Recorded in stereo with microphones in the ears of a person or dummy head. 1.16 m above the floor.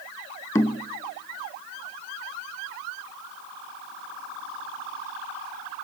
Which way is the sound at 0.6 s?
15° left (ahead or behind).